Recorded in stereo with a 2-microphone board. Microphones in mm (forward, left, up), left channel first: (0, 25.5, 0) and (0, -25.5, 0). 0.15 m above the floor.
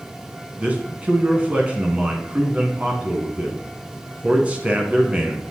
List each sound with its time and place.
0.6 s a man speaking: 25° right (ahead or behind), 1.1 m